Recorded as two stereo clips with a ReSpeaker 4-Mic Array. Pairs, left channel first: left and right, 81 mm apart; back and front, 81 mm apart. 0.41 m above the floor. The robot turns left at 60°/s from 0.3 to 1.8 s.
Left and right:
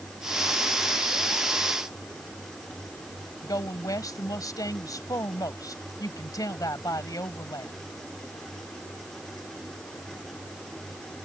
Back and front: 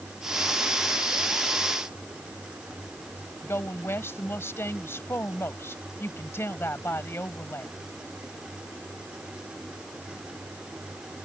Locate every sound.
3.4 s a woman speaking: 125° left